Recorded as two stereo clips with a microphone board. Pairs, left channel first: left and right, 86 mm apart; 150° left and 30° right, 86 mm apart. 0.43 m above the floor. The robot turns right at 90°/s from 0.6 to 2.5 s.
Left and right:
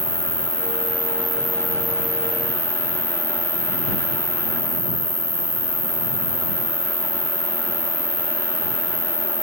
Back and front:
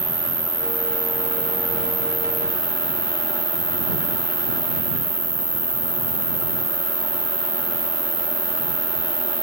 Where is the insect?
95° right; by 9.4 s 75° left.